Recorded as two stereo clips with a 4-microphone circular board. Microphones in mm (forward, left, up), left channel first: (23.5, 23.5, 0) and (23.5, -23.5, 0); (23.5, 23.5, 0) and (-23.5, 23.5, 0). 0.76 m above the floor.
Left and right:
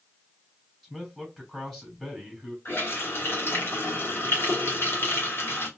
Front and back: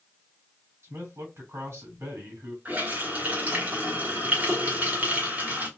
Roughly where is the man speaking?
Behind.